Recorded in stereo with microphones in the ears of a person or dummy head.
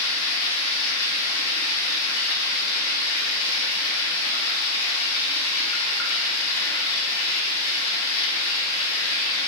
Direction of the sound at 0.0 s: 85° left.